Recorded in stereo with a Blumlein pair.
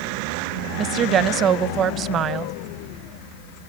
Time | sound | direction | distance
0.8 | a woman speaking | 30° right | 0.6 m